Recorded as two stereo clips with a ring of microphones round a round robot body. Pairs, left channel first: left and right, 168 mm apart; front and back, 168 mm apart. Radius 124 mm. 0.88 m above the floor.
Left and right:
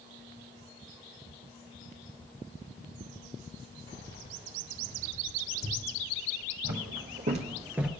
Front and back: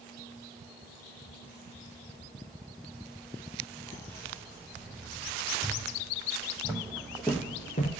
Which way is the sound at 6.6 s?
110° right.